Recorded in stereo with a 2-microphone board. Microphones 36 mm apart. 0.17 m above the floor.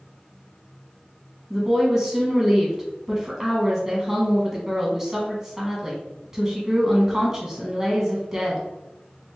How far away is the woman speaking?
About 1.1 m.